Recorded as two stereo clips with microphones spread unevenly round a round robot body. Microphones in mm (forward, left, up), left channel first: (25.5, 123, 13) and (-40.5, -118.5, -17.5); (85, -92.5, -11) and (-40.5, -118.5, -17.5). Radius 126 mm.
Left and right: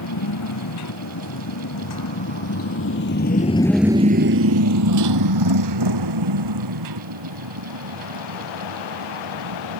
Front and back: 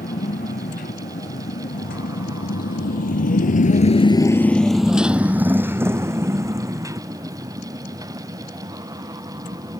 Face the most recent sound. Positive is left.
turn(degrees=-110)